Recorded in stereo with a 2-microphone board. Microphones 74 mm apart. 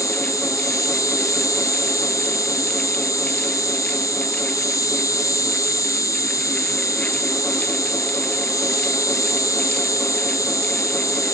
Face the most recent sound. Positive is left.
turn(degrees=55)  # may be behind; listen again after turning